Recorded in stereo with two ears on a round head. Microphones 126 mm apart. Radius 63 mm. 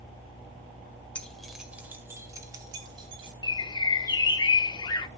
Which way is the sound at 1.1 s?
10° left (ahead or behind).